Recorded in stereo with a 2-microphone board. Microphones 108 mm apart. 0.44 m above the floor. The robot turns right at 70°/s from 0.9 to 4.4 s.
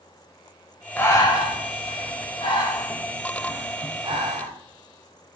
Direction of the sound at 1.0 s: 20° left (ahead or behind).